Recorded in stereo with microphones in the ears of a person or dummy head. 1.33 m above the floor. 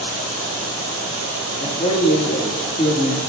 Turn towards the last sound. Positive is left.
turn(degrees=30)  # may be behind; listen again after turning